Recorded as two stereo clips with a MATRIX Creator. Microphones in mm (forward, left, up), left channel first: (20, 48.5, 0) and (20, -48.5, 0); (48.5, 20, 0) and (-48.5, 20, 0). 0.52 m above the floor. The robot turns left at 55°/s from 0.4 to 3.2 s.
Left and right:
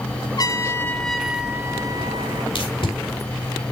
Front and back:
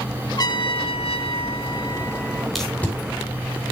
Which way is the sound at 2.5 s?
90° left.